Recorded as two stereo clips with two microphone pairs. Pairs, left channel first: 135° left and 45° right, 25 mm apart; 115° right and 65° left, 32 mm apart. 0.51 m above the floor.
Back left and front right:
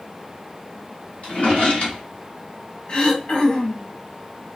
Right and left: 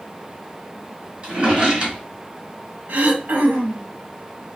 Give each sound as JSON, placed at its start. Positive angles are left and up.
{"t": 1.2, "sound": "a drawer", "azimuth_deg": 125, "distance_m": 1.7}
{"t": 2.9, "sound": "throat clearing", "azimuth_deg": 95, "distance_m": 0.7}